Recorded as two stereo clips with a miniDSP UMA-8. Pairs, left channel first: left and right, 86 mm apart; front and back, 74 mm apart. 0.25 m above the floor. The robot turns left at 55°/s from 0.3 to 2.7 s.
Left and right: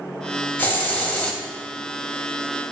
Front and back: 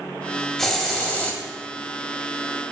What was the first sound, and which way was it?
A hiss, 75° left.